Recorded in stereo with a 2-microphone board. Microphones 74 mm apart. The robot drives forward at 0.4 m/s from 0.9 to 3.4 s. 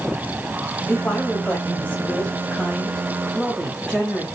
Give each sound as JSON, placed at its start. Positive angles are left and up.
{"t": 0.9, "sound": "a woman speaking", "side_deg": 20, "distance_m": 0.9}